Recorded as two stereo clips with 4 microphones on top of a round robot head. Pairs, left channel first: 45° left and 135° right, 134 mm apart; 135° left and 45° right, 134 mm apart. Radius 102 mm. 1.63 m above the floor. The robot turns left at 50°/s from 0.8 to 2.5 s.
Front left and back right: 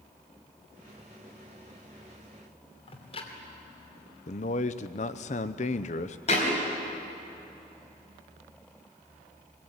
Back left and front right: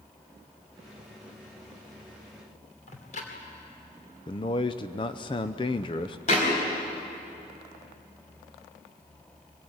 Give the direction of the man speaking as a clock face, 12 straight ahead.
9 o'clock.